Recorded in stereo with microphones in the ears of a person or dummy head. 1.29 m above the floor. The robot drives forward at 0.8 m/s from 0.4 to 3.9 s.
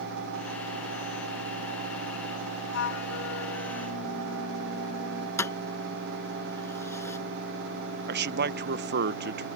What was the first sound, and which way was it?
A flute, 75° left (ahead or behind).